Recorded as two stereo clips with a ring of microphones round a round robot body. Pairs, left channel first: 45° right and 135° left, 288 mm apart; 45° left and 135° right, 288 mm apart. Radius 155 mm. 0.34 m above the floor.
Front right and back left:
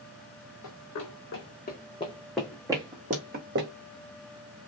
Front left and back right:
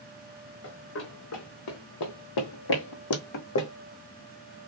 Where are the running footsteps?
10° right, 1.4 m; by 3.7 s 85° left, 1.3 m.